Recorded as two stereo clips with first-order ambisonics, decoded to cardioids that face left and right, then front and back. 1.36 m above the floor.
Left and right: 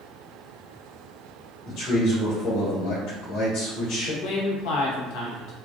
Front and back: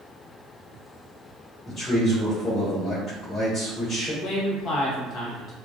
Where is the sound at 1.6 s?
60° left, 1.5 m.